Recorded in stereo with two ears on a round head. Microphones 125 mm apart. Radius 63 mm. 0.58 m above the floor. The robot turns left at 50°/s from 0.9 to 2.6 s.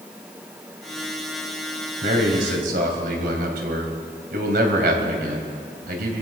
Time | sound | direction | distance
2.0 | a man speaking | 60° right (ahead or behind) | 3 m